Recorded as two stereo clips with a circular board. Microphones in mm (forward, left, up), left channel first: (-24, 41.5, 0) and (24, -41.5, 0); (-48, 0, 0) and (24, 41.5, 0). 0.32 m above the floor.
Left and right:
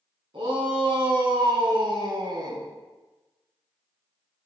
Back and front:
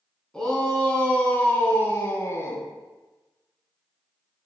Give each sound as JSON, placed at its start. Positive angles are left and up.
{"t": 0.3, "sound": "a shout", "azimuth_deg": -70, "distance_m": 2.5}